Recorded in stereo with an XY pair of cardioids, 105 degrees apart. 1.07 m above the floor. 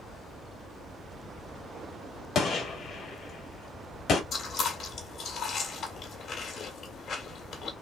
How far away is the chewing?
About 1.6 m.